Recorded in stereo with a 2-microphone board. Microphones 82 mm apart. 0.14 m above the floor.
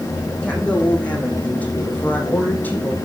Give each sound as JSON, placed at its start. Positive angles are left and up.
{"t": 0.4, "sound": "a woman speaking", "side_deg": 15, "distance_m": 6.5}